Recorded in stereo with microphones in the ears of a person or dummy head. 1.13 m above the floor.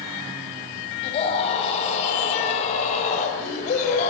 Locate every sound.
1.0 s a scream: 35° left (ahead or behind), 7 m; by 4.1 s 40° left (ahead or behind), 5 m